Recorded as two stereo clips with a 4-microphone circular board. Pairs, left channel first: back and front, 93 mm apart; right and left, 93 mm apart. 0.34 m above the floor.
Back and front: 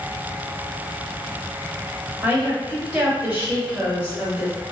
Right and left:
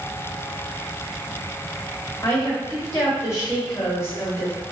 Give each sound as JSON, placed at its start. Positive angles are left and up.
{"t": 2.2, "sound": "a woman speaking", "azimuth_deg": -50, "distance_m": 1.3}